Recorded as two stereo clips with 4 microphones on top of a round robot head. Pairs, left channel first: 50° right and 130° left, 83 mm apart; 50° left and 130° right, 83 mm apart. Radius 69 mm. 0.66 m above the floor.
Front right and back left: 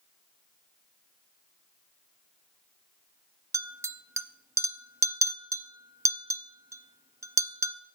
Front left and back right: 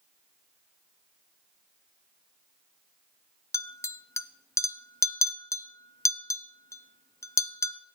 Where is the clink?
90° left, 0.6 m.